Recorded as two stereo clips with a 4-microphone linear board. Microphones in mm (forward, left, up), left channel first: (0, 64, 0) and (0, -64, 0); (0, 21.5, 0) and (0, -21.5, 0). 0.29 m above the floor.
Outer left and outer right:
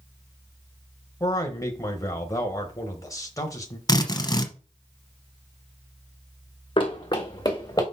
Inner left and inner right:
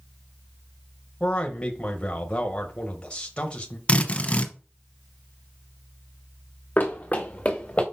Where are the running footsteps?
40° left (ahead or behind), 1.4 m; by 7.8 s 25° left (ahead or behind), 2.5 m.